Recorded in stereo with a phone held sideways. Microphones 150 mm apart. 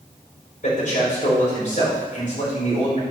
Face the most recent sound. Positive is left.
turn(degrees=55)  # may be behind; listen again after turning